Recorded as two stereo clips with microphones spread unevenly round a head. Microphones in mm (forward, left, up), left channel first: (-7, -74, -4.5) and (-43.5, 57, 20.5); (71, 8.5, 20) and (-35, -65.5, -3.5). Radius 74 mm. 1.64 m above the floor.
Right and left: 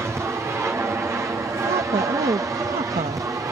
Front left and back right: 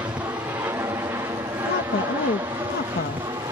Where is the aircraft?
175° left; by 3.5 s 170° left.